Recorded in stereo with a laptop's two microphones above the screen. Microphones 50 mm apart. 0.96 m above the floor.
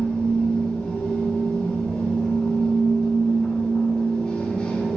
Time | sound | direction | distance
0.0 | a machine running | 25° left (ahead or behind) | 1.3 m